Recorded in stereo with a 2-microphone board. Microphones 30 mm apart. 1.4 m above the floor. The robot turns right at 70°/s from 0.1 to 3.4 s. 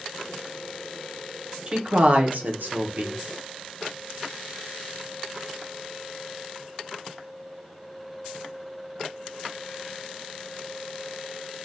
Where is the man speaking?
155° right, 0.6 m; by 3.2 s 45° right, 0.6 m.